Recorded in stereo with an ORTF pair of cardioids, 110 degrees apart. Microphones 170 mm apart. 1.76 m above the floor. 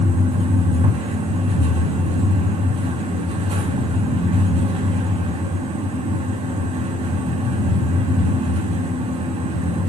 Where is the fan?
35° right, 5 m.